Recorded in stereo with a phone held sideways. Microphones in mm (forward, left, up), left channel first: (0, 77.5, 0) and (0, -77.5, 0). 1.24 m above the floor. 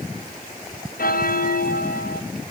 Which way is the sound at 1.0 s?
70° left (ahead or behind).